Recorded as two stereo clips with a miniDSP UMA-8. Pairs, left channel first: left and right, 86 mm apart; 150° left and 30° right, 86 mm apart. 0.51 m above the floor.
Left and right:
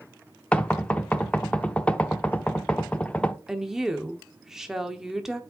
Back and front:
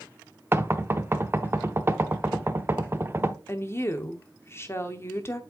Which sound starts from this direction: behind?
A woman speaking, at 3.5 s.